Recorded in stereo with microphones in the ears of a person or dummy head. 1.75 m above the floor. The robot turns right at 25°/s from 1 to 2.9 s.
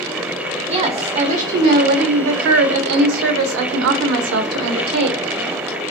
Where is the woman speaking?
150° right, 0.5 m; by 5.3 s 100° right, 0.5 m.